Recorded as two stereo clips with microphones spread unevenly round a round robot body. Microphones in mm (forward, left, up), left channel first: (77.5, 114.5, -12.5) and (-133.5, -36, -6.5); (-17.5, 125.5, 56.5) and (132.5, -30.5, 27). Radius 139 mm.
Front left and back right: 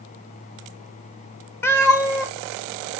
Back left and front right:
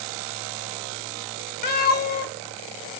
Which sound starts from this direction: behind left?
A cat meowing, at 1.6 s.